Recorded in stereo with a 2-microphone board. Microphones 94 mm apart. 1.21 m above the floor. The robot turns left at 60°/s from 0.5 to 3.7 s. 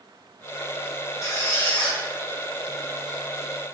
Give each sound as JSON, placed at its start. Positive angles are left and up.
{"t": 1.2, "sound": "a squeak", "azimuth_deg": 55, "distance_m": 0.8}